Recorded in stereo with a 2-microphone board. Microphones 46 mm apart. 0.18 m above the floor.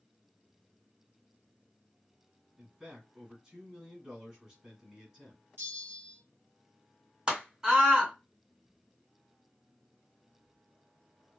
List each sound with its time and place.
2.6 s a man speaking: 15° right (ahead or behind), 1.5 m
5.6 s a bell: 60° right (ahead or behind), 1.3 m
7.3 s a scream: 20° right (ahead or behind), 1.8 m